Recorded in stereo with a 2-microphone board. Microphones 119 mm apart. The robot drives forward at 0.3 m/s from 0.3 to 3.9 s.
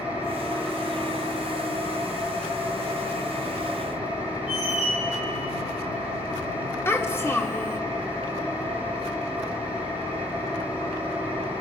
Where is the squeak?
10° right (ahead or behind), 7 m.